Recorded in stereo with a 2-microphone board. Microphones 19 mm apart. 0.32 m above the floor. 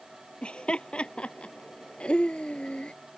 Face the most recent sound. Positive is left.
turn(degrees=70)  # may be behind; listen again after turning